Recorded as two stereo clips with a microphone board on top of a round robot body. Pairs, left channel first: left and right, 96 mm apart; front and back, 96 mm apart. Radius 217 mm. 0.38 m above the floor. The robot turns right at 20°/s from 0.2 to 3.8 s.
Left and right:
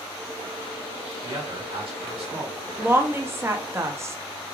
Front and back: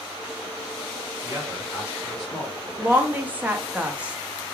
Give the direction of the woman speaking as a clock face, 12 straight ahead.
5 o'clock.